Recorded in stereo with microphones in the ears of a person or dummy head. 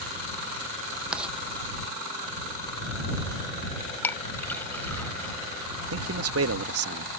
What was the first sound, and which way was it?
Writing, 5° right (ahead or behind).